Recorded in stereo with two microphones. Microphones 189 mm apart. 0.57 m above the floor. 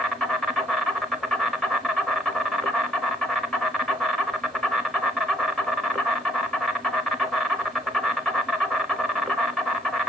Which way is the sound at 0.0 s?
Centre (ahead or behind).